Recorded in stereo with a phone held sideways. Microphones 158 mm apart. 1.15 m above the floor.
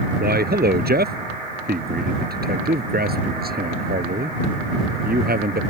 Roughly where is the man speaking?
Right.